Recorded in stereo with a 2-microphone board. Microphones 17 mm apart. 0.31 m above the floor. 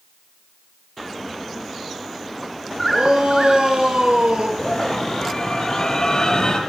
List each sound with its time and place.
2.9 s a shout: 65° right (ahead or behind), 7.5 m; by 4.5 s 60° right (ahead or behind), 6.5 m
4.6 s a scream: 45° left (ahead or behind), 8.5 m